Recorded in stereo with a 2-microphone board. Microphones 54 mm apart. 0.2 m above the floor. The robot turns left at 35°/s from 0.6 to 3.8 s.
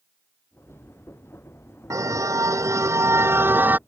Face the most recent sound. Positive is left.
turn(degrees=-150)